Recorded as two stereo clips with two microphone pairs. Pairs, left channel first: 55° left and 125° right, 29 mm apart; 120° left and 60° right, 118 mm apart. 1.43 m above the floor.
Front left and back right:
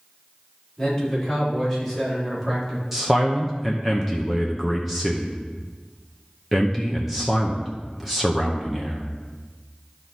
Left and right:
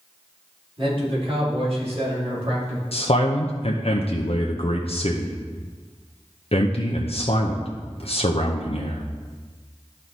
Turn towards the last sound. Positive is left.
turn(degrees=150)